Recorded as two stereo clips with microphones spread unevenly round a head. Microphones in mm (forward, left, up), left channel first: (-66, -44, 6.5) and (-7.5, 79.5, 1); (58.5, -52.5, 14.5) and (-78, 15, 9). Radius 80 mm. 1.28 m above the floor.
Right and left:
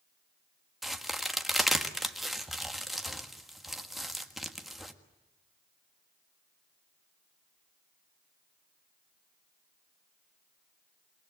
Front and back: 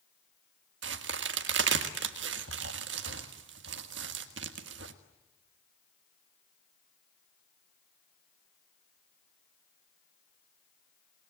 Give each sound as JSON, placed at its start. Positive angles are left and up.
{"t": 0.8, "sound": "a crack", "azimuth_deg": 155, "distance_m": 1.5}